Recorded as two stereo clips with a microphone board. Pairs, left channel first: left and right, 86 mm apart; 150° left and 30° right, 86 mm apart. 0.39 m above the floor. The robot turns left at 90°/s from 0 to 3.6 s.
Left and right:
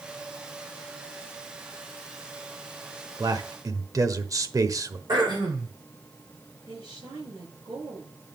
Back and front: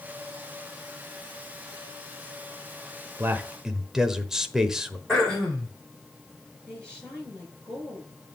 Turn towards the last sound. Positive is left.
turn(degrees=-130)